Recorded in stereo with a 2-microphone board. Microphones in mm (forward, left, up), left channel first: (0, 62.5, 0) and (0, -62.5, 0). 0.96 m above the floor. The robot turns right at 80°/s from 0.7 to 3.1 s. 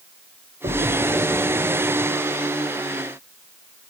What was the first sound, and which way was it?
A splash, 70° right (ahead or behind).